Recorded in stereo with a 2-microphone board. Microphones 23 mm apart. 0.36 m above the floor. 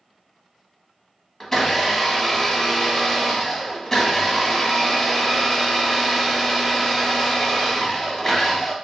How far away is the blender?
About 1.0 m.